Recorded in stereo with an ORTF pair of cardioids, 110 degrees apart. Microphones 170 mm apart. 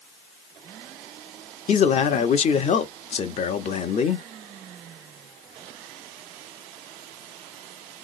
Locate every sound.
1.7 s a man speaking: 40° left, 0.9 m